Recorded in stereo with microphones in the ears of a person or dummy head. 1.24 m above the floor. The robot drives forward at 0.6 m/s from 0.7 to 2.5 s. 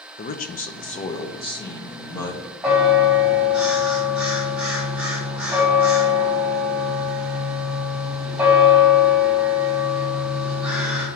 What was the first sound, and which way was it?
A man speaking, 45° left (ahead or behind).